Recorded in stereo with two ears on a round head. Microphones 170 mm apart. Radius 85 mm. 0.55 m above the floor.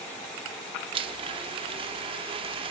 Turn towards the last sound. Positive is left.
turn(degrees=-30)  # may be behind; listen again after turning